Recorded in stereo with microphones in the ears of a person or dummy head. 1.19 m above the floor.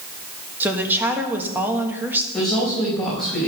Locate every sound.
0.6 s a woman speaking: 10° right (ahead or behind), 1.5 m
2.3 s a woman speaking: 5° left (ahead or behind), 5 m